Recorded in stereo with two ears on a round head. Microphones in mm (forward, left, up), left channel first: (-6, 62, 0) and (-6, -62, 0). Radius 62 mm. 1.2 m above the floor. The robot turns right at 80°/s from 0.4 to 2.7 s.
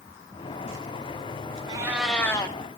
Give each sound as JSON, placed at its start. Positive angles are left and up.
{"t": 1.7, "sound": "a cat meowing", "azimuth_deg": -30, "distance_m": 2.5}